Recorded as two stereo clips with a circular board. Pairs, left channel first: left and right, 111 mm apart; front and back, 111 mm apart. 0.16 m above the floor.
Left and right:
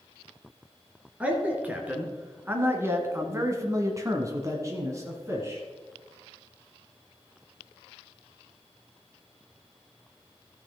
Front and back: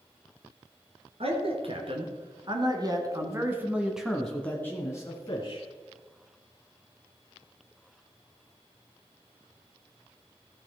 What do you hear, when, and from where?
1.2 s a man speaking: 165° right, 2.5 m; by 5.6 s 30° right, 1.8 m